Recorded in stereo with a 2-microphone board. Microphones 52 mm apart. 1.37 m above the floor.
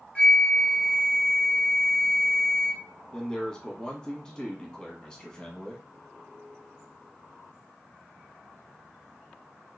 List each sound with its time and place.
0.1 s a flute: 20° left (ahead or behind), 1.0 m
3.1 s a man speaking: 10° left (ahead or behind), 1.3 m